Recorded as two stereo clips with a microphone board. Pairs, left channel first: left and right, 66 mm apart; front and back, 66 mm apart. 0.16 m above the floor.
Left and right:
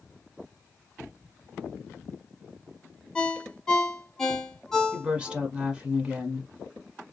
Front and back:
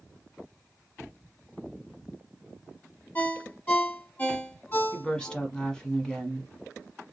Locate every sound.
3.1 s a ringtone: 20° left, 1.0 m
4.9 s a woman speaking: 55° right, 1.1 m